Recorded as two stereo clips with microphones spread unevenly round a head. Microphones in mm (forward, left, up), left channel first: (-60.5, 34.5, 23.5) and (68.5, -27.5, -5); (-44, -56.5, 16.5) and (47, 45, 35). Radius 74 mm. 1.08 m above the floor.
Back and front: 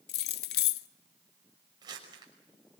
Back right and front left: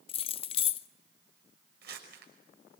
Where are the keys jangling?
Straight behind, 0.6 m.